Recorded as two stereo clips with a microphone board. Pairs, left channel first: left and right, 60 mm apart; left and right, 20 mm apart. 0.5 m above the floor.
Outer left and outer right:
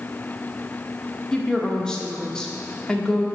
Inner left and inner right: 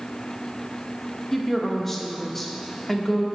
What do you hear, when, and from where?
1.3 s a woman speaking: 15° left (ahead or behind), 0.7 m